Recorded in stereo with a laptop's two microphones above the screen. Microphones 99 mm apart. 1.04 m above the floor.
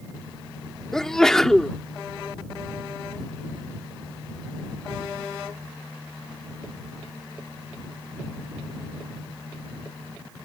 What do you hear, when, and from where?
0.9 s a sneeze: 5° left (ahead or behind)